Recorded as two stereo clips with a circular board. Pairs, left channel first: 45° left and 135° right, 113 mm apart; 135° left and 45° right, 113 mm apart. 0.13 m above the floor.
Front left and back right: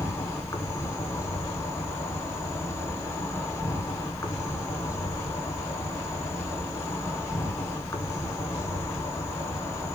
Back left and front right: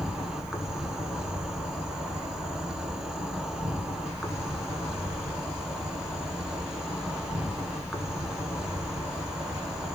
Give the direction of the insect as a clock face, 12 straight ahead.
11 o'clock.